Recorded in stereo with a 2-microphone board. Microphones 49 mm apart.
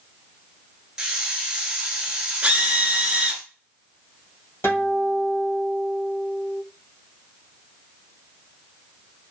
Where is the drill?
25° right (ahead or behind), 0.8 m.